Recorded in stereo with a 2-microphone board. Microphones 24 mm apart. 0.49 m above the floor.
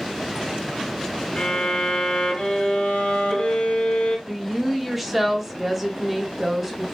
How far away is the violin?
About 1.7 m.